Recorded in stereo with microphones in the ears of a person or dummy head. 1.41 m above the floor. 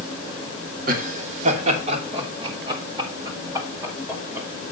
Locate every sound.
0.9 s laughter: 55° right (ahead or behind), 3.5 m; by 4.5 s 15° right (ahead or behind), 5.5 m